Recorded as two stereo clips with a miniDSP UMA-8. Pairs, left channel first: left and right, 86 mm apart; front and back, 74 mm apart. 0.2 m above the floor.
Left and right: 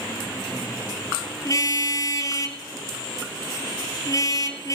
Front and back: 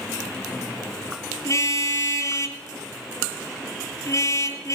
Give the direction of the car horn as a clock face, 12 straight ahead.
11 o'clock.